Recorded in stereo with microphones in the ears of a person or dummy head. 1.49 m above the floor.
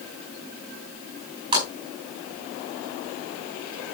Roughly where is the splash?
Right.